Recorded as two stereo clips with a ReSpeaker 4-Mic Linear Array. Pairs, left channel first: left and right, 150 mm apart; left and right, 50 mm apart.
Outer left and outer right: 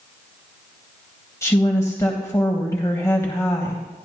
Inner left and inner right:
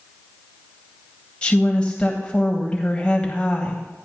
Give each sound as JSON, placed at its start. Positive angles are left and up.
{"t": 1.4, "sound": "a woman speaking", "side_deg": 20, "distance_m": 1.5}